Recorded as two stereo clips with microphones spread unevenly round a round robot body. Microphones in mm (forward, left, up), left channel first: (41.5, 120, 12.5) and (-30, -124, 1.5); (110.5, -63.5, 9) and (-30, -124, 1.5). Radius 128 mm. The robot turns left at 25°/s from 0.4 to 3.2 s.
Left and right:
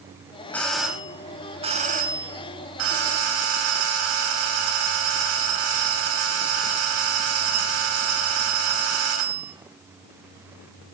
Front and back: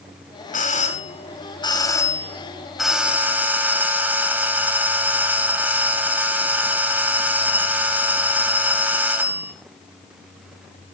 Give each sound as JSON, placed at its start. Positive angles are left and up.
{"t": 0.5, "sound": "a doorbell", "azimuth_deg": -10, "distance_m": 4.0}